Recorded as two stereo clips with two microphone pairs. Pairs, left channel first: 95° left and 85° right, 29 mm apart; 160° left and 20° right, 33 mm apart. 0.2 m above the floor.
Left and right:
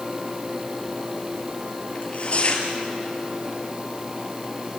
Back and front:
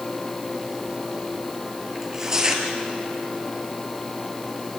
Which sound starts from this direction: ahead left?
Tearing paper, at 1.9 s.